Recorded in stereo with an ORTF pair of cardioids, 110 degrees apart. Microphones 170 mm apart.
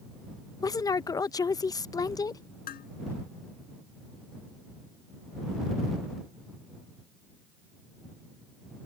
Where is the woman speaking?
20° left.